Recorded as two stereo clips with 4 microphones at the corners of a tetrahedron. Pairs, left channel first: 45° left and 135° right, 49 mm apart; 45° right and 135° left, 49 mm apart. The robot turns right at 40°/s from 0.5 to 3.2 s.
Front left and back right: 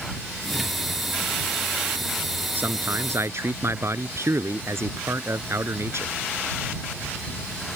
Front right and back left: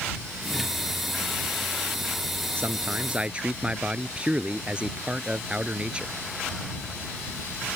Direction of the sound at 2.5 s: 175° left.